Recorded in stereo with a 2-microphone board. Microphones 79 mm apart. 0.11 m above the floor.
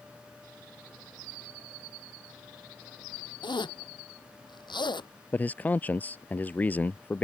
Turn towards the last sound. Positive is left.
turn(degrees=20)  # may be behind; listen again after turning